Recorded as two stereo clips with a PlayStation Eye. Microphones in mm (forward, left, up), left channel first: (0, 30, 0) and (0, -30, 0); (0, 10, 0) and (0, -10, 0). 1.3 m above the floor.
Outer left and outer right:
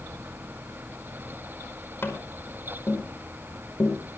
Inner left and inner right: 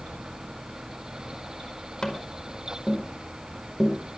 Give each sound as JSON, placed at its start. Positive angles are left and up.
{"t": 2.0, "sound": "tapping", "side_deg": 40, "distance_m": 5.0}